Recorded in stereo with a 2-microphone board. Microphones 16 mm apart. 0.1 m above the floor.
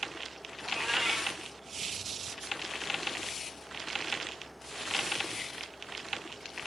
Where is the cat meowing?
25° right (ahead or behind), 2.5 m.